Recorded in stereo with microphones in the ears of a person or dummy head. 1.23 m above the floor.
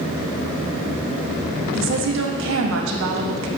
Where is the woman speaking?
70° right (ahead or behind), 1.9 m.